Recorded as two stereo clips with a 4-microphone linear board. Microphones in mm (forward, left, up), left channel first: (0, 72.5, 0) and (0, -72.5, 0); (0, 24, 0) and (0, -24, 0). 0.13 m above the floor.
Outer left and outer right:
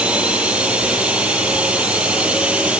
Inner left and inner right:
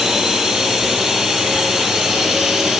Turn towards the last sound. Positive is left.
turn(degrees=-5)  # may be behind; listen again after turning